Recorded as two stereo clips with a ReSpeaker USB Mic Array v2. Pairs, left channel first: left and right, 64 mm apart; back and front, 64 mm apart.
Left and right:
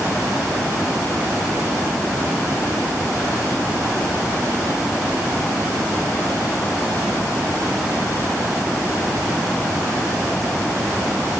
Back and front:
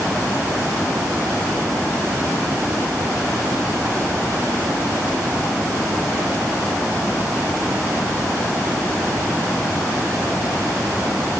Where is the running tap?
No running tap in this recording.